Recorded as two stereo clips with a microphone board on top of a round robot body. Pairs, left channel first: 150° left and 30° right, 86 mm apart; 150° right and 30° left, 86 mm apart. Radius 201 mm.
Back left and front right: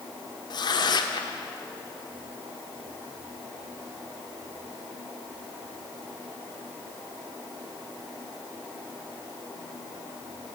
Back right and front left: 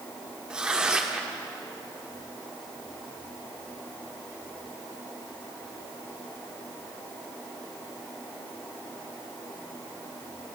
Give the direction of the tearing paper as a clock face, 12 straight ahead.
8 o'clock.